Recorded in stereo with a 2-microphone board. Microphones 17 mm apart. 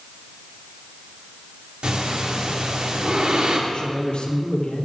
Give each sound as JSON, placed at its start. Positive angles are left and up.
{"t": 1.8, "sound": "breathing", "side_deg": -90, "distance_m": 3.0}
{"t": 3.7, "sound": "a man speaking", "side_deg": 55, "distance_m": 3.0}